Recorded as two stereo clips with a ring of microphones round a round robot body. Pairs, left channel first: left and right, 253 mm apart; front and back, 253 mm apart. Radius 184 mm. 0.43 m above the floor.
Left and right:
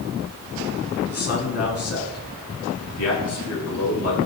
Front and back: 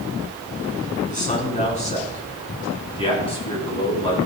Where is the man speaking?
60° left, 4.5 m; by 4.2 s 70° left, 6 m.